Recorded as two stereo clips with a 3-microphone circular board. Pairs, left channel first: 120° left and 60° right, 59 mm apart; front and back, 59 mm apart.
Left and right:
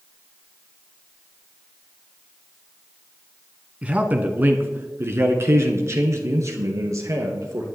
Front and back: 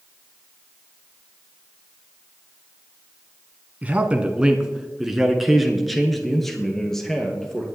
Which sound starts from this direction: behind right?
A man speaking, at 3.8 s.